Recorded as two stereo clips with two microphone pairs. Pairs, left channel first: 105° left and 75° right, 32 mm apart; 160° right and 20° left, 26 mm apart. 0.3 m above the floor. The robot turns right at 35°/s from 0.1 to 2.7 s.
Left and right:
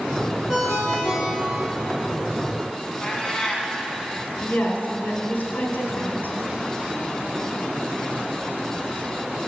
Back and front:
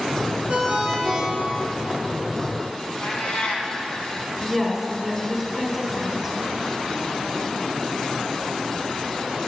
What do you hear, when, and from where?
0.5 s a ringtone: 90° left, 4 m; by 1.8 s 135° left, 4 m
3.0 s a cat meowing: 175° left, 1.5 m
4.4 s a woman speaking: 120° left, 3 m